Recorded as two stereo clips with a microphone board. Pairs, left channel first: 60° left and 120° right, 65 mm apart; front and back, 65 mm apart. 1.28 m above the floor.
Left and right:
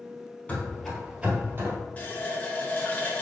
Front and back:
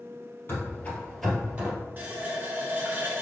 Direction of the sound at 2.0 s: 120° left.